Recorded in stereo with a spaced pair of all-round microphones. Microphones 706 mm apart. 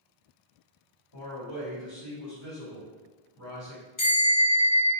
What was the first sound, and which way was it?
A man speaking, 35° left (ahead or behind).